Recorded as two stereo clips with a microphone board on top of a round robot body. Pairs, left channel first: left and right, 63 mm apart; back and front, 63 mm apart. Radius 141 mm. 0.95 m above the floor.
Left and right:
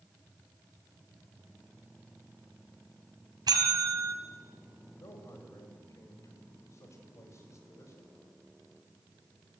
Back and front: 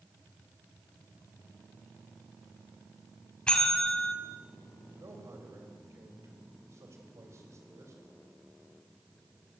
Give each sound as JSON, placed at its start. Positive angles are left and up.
{"t": 3.5, "sound": "a bell", "azimuth_deg": -105, "distance_m": 3.5}
{"t": 5.0, "sound": "a man speaking", "azimuth_deg": 45, "distance_m": 4.5}